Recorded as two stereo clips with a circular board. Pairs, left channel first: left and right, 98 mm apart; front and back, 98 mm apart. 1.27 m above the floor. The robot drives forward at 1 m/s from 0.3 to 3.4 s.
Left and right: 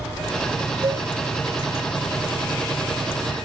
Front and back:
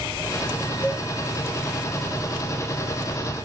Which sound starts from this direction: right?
A cowbell, at 0.8 s.